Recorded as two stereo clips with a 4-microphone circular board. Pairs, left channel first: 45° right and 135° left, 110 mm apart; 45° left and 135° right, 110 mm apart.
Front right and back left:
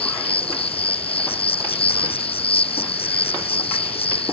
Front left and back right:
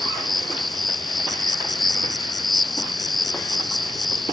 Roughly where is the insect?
Ahead right.